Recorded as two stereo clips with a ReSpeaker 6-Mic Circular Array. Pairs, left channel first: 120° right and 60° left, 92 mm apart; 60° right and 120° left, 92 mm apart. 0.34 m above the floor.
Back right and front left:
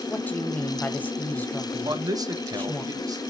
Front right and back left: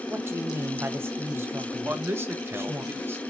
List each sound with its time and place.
0.1 s a woman speaking: 175° left, 1.4 m
1.9 s a man speaking: 70° left, 1.2 m